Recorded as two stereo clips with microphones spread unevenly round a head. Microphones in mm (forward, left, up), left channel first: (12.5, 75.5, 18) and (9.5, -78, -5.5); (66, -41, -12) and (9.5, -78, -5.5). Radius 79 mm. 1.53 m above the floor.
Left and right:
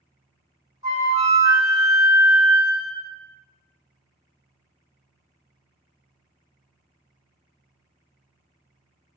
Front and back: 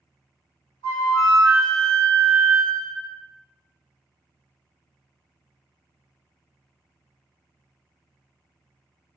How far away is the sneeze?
No sneeze in this recording.